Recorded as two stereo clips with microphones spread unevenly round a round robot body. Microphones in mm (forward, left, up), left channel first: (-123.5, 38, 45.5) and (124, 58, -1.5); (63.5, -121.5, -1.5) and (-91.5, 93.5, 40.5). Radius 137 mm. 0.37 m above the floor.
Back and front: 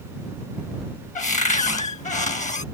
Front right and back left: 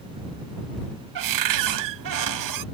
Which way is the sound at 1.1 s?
120° left.